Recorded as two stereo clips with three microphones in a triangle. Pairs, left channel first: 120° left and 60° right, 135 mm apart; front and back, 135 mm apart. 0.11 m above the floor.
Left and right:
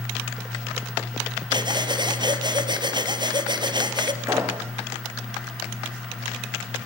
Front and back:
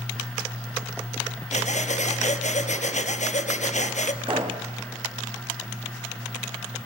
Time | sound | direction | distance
1.5 | breathing | 10° right | 2.5 m
4.2 | a pop | 130° right | 4 m